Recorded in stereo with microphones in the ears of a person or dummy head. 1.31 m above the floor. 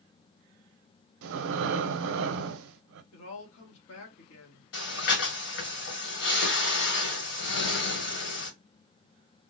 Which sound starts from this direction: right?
Breathing, at 1.2 s.